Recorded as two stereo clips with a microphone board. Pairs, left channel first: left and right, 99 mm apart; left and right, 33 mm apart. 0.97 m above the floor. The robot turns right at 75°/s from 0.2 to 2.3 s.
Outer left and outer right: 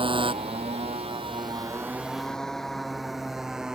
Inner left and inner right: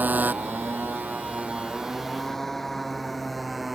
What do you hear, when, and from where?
0.0 s a motorcycle: 60° right (ahead or behind); by 3.8 s 5° right (ahead or behind)